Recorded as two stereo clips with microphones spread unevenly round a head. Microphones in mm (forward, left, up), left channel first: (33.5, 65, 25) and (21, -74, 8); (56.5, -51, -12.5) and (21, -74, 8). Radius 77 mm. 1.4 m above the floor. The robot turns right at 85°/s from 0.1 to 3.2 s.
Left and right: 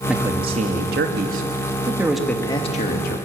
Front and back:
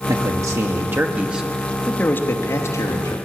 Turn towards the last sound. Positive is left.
turn(degrees=80)